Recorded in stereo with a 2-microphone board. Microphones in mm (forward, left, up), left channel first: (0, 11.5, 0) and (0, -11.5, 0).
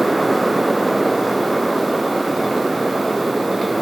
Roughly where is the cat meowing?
I don't hear a cat meowing.